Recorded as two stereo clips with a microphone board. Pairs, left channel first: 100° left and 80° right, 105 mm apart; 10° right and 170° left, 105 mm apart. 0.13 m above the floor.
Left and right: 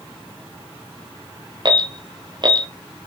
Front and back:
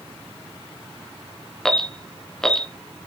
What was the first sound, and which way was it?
An alarm, 95° right.